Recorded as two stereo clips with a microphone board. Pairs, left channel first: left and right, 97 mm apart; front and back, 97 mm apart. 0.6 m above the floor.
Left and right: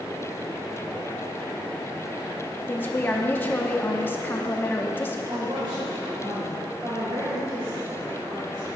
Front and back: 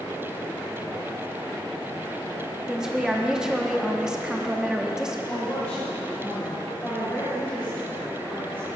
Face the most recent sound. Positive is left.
turn(degrees=-65)